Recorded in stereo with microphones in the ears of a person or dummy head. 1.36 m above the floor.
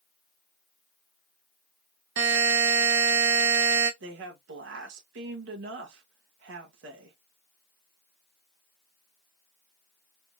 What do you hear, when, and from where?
2.2 s a buzzer: 70° right (ahead or behind), 1.6 m
4.0 s a woman speaking: 75° right (ahead or behind), 1.9 m